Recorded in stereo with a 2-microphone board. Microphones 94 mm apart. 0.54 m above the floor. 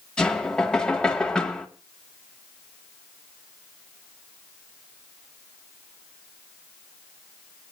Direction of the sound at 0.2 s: 10° left (ahead or behind).